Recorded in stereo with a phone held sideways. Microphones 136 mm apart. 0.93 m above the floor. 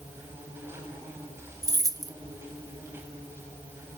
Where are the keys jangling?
25° right (ahead or behind), 0.9 m.